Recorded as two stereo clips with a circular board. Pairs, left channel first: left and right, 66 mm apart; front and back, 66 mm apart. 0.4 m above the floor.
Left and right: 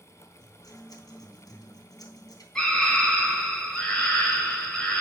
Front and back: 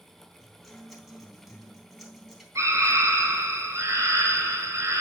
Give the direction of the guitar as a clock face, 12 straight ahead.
9 o'clock.